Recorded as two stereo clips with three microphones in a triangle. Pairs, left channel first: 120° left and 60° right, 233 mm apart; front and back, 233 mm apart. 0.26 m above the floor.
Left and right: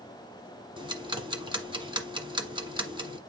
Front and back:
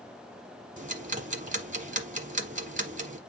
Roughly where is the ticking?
Behind right.